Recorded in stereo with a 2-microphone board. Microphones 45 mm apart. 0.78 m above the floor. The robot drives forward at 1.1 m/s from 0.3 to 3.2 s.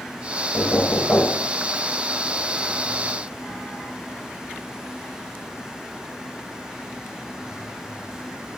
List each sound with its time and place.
0.5 s knocking: 70° left (ahead or behind), 2.5 m; by 1.5 s 50° left (ahead or behind), 3 m